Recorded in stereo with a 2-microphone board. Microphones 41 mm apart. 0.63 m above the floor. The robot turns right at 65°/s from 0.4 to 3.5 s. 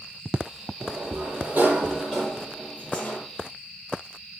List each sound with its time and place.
0.8 s a sliding door: 100° right, 7 m; by 3.2 s 60° left, 7 m